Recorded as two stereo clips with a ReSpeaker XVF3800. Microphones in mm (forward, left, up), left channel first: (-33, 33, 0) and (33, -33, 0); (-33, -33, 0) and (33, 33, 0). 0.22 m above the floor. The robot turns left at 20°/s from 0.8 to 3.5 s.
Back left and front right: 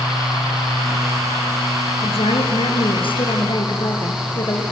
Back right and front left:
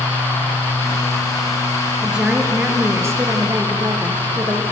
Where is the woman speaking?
130° left, 5 m; by 4.6 s 100° left, 5 m.